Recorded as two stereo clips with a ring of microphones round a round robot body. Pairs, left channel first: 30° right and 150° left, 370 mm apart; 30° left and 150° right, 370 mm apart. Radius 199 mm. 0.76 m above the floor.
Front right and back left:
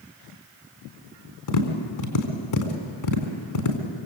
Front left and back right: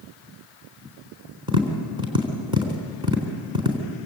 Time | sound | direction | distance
1.5 | tapping | 70° right | 4 m